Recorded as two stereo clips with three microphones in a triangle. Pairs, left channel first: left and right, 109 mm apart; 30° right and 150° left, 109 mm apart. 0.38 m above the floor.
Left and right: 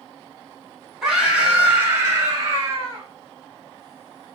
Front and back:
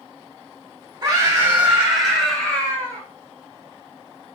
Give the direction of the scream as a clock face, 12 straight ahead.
6 o'clock.